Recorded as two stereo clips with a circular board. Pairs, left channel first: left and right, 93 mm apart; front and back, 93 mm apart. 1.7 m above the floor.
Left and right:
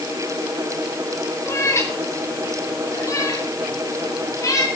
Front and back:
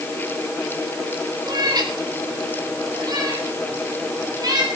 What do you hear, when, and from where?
1.5 s a cat meowing: 145° left, 3 m; by 4.7 s 140° left, 7 m